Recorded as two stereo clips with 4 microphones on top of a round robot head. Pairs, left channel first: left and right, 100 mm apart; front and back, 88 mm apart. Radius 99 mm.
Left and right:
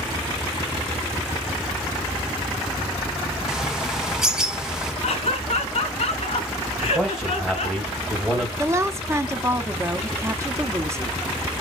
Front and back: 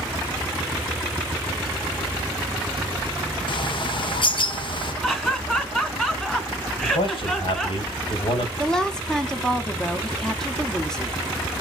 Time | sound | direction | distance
3.5 | a bird | 5° right | 0.8 m
5.0 | laughter | 80° left | 3.5 m
6.8 | a man speaking | 5° right | 3 m
8.6 | a woman speaking | 75° right | 1.2 m